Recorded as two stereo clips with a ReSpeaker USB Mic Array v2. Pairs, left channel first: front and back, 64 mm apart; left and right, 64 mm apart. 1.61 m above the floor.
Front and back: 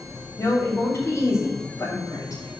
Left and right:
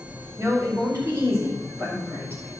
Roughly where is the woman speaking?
Ahead right.